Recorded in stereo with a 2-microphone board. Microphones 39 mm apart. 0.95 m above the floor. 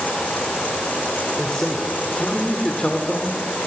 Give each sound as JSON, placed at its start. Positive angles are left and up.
{"t": 1.4, "sound": "a man speaking", "side_deg": 20, "distance_m": 2.5}